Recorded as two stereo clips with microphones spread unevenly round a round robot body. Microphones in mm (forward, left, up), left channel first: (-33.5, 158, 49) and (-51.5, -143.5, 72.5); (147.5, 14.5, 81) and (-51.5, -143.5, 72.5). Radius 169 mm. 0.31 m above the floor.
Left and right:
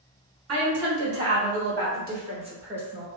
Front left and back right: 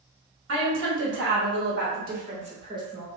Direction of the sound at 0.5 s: 120° right.